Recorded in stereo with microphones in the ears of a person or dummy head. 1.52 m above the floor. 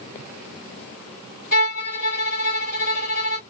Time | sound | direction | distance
1.5 | a violin | 45° left (ahead or behind) | 1.6 m